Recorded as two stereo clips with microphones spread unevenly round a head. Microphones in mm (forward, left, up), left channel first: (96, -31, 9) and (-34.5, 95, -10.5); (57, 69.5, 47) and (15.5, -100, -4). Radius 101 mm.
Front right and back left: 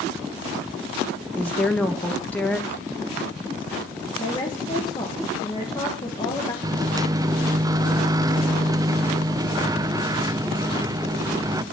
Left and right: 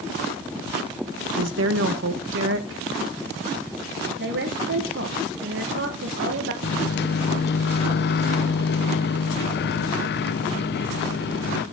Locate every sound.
1.4 s a woman speaking: 125° right, 1.3 m
4.2 s a woman speaking: 115° right, 1.5 m
6.6 s a microwave: 65° left, 0.5 m